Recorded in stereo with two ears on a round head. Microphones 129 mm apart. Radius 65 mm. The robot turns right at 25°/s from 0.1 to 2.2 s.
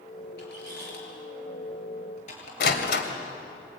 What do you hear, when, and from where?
0.4 s a squeak: 80° left, 7 m; by 2.5 s 55° left (ahead or behind), 7 m
2.6 s a door slam: 80° left, 3 m